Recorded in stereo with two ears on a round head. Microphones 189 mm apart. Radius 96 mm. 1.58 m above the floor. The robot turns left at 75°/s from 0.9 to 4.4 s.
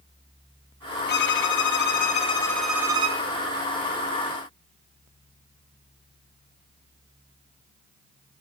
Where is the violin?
120° left, 1.0 m; by 3.2 s 40° right, 1.0 m.